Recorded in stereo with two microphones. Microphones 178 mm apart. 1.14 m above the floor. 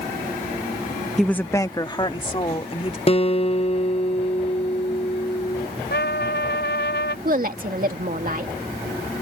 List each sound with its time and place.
1.2 s a woman speaking: centre (ahead or behind); by 3.0 s 35° left (ahead or behind)
3.1 s a guitar: 35° left (ahead or behind)
5.9 s a trumpet: 75° left (ahead or behind)
7.2 s a woman speaking: 55° right (ahead or behind)